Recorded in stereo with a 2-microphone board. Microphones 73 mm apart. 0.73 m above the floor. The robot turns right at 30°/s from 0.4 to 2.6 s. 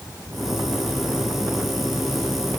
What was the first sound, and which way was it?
Only background noise.